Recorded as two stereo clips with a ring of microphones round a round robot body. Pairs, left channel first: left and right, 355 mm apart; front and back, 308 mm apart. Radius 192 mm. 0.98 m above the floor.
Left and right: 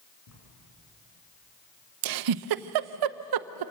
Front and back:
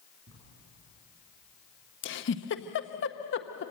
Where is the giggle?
60° right, 0.6 m.